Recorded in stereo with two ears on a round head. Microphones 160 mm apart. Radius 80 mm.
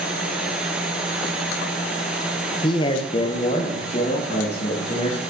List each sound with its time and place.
2.6 s a man speaking: 25° left (ahead or behind), 0.9 m; by 5.2 s 35° left (ahead or behind), 2.5 m